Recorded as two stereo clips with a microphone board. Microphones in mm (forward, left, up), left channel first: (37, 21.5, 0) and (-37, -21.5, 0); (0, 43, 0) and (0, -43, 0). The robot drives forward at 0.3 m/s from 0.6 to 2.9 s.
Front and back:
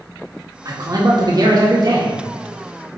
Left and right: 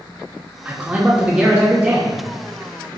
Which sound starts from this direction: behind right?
A man speaking, at 0.7 s.